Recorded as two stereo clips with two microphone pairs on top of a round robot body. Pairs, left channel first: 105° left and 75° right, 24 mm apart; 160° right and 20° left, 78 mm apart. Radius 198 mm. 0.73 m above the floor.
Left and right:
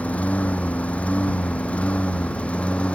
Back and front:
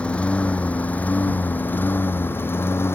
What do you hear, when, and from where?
0.0 s a lawn mower: 125° left; by 3.0 s 140° left